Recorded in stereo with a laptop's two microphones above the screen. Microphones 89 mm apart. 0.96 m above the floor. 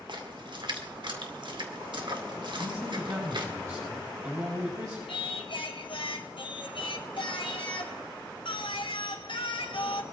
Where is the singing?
75° left (ahead or behind), 2.5 m.